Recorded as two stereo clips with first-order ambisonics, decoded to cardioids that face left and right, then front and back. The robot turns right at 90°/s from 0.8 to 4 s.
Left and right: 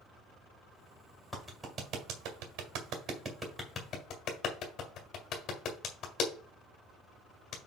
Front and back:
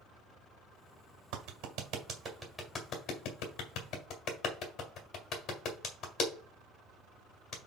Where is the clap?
170° left, 1.8 m; by 7.6 s 50° left, 1.8 m.